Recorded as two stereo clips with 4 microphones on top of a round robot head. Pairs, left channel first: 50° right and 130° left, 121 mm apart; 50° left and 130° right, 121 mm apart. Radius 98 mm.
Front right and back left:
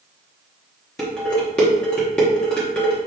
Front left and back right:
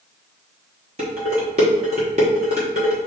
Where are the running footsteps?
No running footsteps in this recording.